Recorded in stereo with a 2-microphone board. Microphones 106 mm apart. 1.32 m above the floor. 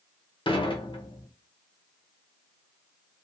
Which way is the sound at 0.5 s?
50° left (ahead or behind).